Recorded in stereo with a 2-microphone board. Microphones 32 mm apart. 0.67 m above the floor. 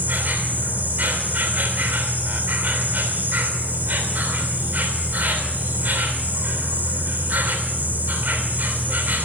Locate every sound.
0.0 s an insect: 70° right (ahead or behind), 3 m